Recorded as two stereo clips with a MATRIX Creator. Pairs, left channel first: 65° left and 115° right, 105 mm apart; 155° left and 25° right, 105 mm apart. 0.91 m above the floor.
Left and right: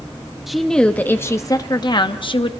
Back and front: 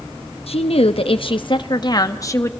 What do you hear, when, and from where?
0.5 s a woman speaking: 160° left, 1.1 m; by 2.5 s 95° left, 1.4 m